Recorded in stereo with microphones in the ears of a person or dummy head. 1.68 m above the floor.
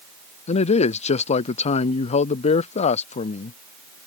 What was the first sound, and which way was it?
A man speaking, 40° left (ahead or behind).